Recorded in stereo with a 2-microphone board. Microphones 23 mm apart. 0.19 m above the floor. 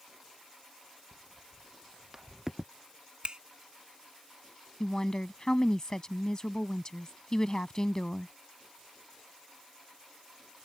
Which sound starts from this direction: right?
A finger snap, at 3.2 s.